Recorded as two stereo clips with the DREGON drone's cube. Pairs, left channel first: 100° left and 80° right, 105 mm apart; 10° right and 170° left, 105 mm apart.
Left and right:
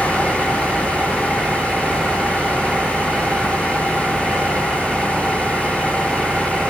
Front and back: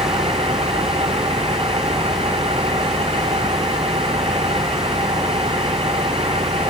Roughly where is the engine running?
Behind.